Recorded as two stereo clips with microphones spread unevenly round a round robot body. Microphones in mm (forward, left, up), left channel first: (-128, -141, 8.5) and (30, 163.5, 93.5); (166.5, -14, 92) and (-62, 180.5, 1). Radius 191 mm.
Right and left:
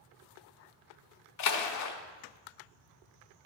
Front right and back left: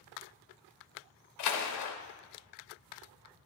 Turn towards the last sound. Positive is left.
turn(degrees=-90)